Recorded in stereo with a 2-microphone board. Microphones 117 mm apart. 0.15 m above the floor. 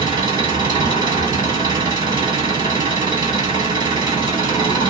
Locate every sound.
0.0 s an engine running: 35° right (ahead or behind), 1.5 m